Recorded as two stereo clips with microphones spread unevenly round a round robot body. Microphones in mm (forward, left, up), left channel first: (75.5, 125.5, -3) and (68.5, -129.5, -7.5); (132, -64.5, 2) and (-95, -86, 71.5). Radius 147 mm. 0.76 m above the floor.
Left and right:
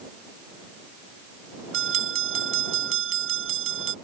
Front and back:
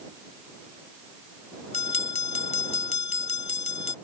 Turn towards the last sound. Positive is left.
turn(degrees=-55)